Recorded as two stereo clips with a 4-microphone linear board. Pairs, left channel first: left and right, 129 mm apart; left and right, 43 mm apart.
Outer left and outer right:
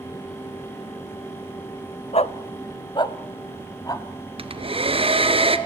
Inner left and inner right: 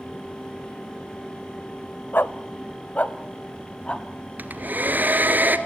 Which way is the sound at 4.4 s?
45° right (ahead or behind).